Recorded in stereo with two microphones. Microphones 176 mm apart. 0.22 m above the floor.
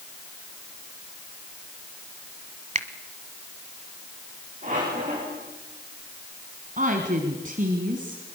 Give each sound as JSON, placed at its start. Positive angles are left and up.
{"t": 2.8, "sound": "a finger snap", "side_deg": -45, "distance_m": 1.2}
{"t": 4.6, "sound": "a squeak", "side_deg": -45, "distance_m": 7.5}
{"t": 6.8, "sound": "a woman speaking", "side_deg": -50, "distance_m": 2.0}